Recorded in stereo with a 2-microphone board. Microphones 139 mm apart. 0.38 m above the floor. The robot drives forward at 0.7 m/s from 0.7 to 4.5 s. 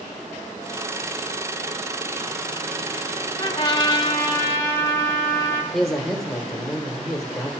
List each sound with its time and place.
3.4 s a trumpet: 30° left (ahead or behind), 0.7 m; by 5.6 s 20° left (ahead or behind), 0.9 m
5.7 s a man speaking: centre (ahead or behind), 1.0 m